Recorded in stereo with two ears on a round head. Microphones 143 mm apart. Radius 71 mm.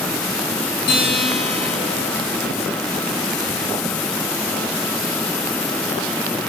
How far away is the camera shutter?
I don't hear a camera shutter.